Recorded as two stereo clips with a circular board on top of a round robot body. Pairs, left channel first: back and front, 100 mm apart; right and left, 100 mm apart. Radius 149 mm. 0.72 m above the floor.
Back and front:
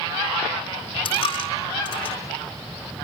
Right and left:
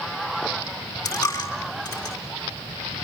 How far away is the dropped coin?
About 4 m.